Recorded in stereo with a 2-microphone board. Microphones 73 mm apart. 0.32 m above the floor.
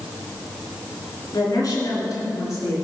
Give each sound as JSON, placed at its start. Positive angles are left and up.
{"t": 1.3, "sound": "a woman speaking", "side_deg": 50, "distance_m": 3.5}